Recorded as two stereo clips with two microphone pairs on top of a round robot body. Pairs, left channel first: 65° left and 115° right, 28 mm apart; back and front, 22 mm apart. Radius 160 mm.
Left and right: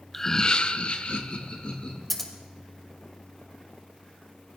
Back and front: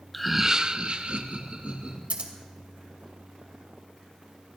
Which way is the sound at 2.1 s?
25° right.